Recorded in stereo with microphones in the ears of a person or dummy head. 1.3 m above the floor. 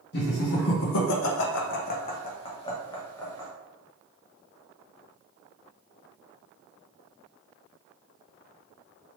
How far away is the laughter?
About 0.9 m.